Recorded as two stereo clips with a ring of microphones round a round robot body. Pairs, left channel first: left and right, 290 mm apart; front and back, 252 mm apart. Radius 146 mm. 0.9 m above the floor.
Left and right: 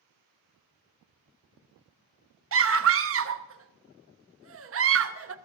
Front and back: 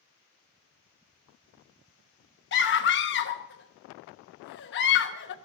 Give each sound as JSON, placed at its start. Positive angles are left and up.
{"t": 2.5, "sound": "a scream", "azimuth_deg": -50, "distance_m": 1.0}